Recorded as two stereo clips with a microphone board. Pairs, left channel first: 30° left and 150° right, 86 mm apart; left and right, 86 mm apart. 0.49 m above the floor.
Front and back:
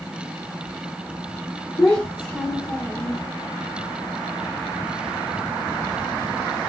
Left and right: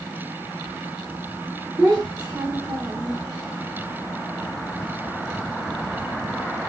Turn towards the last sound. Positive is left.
turn(degrees=-30)